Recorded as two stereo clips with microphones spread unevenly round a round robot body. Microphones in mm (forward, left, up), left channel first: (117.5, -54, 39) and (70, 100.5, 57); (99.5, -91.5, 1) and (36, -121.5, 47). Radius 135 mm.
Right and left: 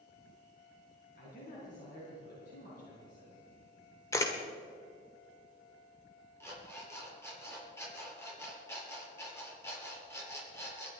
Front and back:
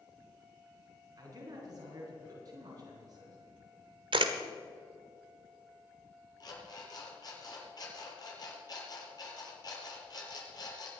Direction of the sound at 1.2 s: 125° right.